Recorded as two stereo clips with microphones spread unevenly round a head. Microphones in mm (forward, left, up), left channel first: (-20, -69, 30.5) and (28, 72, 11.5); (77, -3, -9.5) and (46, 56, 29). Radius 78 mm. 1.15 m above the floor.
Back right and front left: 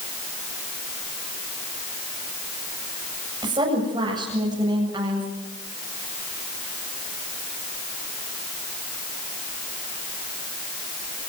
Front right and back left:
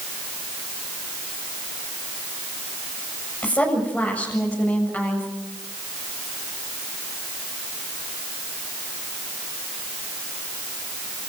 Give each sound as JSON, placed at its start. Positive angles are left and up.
{"t": 3.4, "sound": "a woman speaking", "azimuth_deg": 10, "distance_m": 7.5}